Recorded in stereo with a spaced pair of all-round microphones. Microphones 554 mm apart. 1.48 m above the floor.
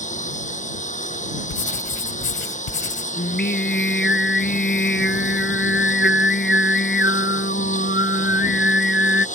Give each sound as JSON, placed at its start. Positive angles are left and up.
{"t": 0.0, "sound": "a lawn mower", "side_deg": 15}
{"t": 1.5, "sound": "writing", "side_deg": 60}
{"t": 3.2, "sound": "singing", "side_deg": 20}